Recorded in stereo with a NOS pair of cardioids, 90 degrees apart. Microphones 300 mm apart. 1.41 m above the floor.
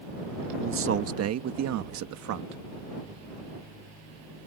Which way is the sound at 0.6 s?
45° right.